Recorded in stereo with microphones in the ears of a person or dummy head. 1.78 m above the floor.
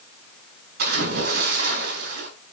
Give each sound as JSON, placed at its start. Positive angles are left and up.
{"t": 0.8, "sound": "a splash", "side_deg": -55, "distance_m": 5.0}